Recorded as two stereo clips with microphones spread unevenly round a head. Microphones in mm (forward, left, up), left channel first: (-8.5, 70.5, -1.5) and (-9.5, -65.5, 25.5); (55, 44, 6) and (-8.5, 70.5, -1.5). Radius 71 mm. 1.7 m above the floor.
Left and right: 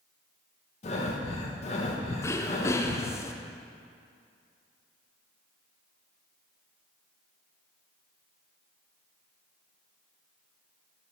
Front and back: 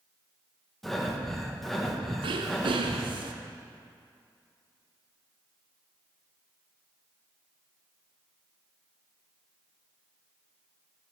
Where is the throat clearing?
160° left, 0.5 m.